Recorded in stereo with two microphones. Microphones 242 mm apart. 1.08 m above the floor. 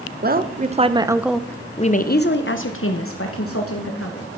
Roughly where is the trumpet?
No trumpet in this recording.